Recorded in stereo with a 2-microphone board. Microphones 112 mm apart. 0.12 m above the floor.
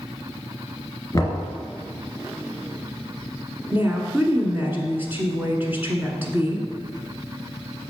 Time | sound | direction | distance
1.1 | knocking | 25° left (ahead or behind) | 1.8 m
3.7 | a woman speaking | 20° right (ahead or behind) | 1.3 m